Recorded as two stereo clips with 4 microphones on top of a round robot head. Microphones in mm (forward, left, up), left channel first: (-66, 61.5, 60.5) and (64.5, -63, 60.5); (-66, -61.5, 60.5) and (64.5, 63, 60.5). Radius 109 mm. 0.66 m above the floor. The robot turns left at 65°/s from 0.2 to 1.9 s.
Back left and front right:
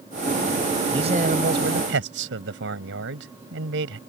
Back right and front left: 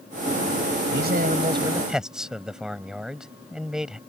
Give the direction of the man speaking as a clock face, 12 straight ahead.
11 o'clock.